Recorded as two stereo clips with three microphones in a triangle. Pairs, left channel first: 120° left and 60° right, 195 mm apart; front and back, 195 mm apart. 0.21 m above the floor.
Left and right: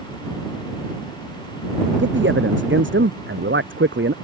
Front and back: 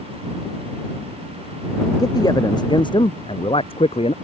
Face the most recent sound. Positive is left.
turn(degrees=-60)